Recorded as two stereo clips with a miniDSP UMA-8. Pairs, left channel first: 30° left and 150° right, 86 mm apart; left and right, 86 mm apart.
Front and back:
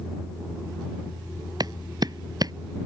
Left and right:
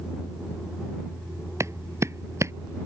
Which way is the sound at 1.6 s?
135° right.